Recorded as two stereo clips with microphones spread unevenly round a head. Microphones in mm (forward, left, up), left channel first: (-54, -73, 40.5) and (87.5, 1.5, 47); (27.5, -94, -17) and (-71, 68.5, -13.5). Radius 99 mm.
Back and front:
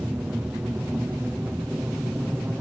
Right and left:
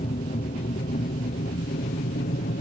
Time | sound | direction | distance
0.0 | an aircraft | 50° right | ?